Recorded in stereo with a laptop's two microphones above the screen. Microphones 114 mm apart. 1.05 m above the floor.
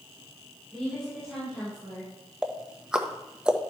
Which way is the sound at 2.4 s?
5° right (ahead or behind).